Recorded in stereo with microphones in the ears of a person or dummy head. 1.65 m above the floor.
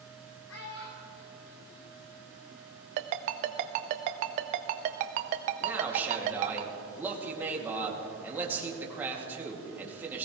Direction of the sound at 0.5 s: 80° left.